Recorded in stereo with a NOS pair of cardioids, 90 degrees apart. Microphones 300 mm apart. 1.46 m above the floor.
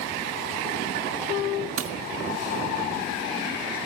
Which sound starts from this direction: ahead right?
Breaking glass, at 1.8 s.